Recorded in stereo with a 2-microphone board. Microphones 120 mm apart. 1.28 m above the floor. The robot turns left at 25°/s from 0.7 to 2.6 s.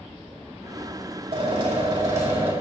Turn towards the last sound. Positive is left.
turn(degrees=-160)